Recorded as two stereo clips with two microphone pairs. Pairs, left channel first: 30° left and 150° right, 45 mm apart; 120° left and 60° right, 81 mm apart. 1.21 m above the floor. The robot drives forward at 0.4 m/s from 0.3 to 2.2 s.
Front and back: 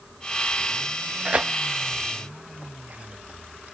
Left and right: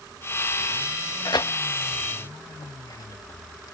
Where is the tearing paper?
150° left; by 3.7 s 160° left.